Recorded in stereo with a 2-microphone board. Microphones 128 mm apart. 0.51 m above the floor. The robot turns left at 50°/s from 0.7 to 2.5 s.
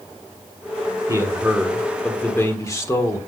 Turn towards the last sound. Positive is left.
turn(degrees=145)